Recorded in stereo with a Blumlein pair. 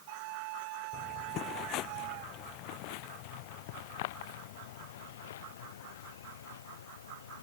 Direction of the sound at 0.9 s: 30° left.